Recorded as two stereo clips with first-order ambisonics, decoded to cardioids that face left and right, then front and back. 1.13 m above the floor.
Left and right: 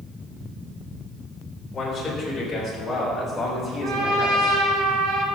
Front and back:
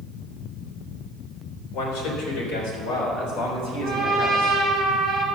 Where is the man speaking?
10° left, 3.5 m; by 4.5 s 15° right, 5 m.